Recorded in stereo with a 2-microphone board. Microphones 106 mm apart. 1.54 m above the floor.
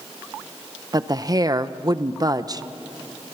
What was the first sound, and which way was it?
A woman speaking, 35° right (ahead or behind).